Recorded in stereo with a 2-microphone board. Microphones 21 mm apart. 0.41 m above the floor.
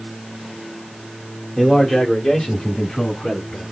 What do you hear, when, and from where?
1.6 s a man speaking: 20° left (ahead or behind), 1.4 m; by 3.6 s 60° left (ahead or behind), 3.5 m